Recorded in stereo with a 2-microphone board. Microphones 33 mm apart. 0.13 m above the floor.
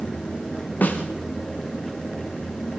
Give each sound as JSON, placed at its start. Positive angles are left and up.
{"t": 0.8, "sound": "a snare drum", "side_deg": 65, "distance_m": 4.5}